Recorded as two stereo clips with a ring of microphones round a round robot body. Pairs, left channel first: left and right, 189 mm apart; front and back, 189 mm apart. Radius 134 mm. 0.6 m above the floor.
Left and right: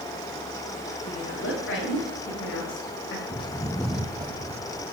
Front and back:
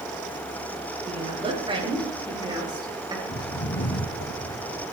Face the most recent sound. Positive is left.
turn(degrees=-45)